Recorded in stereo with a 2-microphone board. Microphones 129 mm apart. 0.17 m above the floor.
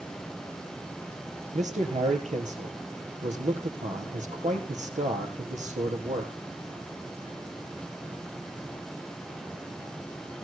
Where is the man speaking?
65° right (ahead or behind), 4 m.